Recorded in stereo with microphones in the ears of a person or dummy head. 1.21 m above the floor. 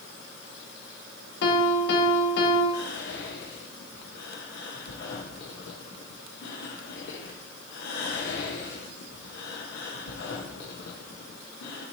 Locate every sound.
1.4 s a piano: 70° left (ahead or behind), 1.4 m
2.7 s whispering: 70° left (ahead or behind), 1.1 m